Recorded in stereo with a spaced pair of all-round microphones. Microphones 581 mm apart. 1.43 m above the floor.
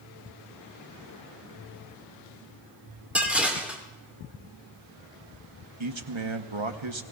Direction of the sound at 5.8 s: 50° right (ahead or behind).